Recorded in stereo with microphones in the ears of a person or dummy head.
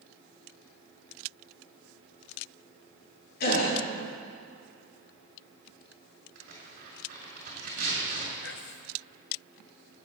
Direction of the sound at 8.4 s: 55° left (ahead or behind).